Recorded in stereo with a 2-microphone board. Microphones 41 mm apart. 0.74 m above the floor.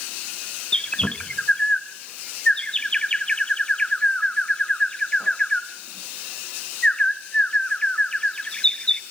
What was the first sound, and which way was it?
A bird, 20° left (ahead or behind).